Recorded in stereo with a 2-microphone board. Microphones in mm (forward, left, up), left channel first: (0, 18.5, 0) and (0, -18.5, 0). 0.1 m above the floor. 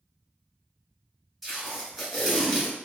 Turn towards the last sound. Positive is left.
turn(degrees=-5)  # may be behind; listen again after turning